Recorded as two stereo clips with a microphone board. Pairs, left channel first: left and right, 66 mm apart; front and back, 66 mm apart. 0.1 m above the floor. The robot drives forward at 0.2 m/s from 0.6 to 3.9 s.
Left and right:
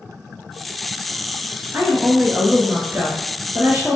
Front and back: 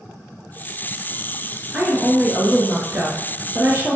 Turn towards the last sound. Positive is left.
turn(degrees=-140)